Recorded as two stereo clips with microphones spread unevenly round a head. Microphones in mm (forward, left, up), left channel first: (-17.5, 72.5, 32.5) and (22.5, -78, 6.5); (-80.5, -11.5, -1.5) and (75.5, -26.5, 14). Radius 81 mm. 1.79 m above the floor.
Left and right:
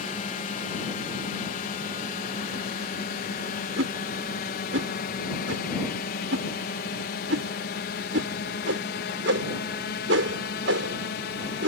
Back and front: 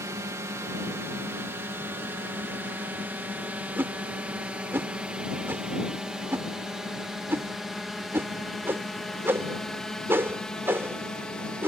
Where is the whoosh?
80° right.